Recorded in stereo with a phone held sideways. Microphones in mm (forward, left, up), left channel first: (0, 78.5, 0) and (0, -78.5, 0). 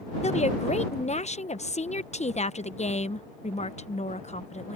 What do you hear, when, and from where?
0.2 s a woman speaking: 45° left (ahead or behind)